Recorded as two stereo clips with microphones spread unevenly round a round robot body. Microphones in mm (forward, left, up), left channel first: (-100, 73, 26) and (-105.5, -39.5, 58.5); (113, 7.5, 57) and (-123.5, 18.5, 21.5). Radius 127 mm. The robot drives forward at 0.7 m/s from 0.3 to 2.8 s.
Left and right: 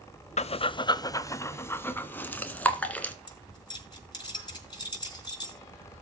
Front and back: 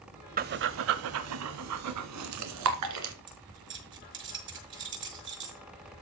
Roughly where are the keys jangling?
Behind left.